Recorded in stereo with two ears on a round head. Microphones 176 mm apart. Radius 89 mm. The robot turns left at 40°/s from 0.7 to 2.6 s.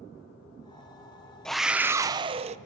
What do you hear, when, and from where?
1.4 s a scream: 5° left, 0.7 m; by 2.6 s 40° right, 0.7 m